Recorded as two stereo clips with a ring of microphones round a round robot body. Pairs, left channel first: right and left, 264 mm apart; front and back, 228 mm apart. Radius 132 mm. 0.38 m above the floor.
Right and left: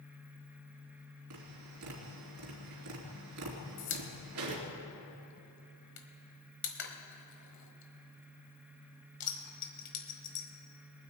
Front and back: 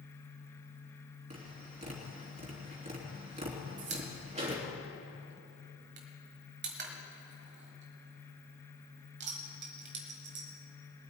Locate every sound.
1.3 s tapping: 120° left, 3 m
3.8 s a pop: 135° right, 1.4 m